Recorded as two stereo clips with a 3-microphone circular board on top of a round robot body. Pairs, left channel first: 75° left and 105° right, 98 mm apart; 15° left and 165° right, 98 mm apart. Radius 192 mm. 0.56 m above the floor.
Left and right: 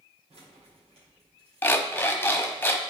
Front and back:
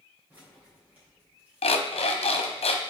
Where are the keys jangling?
90° right, 2 m.